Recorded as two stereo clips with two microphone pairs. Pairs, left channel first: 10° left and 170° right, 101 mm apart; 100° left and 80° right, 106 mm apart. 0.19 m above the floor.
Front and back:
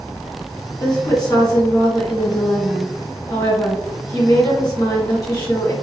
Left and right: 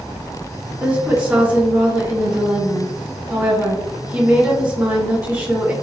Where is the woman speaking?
15° right, 1.7 m.